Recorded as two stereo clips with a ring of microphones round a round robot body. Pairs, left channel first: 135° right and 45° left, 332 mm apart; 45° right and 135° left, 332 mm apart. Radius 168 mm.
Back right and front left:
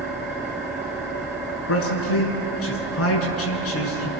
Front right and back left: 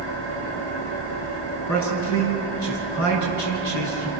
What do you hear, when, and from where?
0.0 s an engine running: 40° right, 5.5 m
1.7 s a man speaking: 85° right, 6.5 m